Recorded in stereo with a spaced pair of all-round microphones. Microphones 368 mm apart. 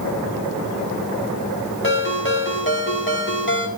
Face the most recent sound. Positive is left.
turn(degrees=30)  # may be behind; listen again after turning